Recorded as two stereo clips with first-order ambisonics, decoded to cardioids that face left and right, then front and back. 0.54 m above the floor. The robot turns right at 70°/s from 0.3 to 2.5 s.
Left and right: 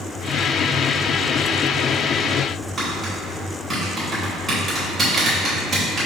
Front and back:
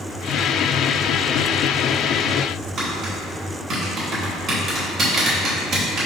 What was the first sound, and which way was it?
Tapping, 155° right.